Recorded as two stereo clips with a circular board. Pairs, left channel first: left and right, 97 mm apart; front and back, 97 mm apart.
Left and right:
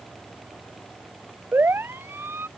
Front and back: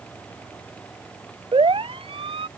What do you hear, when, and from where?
1.5 s a siren: 155° right